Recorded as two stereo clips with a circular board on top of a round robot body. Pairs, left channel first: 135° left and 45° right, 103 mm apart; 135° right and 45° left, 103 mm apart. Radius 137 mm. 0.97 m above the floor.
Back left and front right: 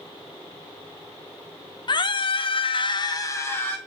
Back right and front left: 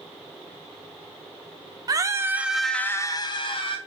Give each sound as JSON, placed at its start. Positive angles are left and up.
{"t": 1.9, "sound": "a scream", "azimuth_deg": 95, "distance_m": 1.0}